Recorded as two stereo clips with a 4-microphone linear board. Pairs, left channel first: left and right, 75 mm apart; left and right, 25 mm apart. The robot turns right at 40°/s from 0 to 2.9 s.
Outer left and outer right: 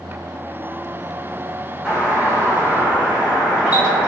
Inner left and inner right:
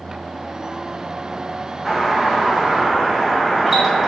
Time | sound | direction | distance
1.9 | a doorbell | 10° right (ahead or behind) | 1.3 m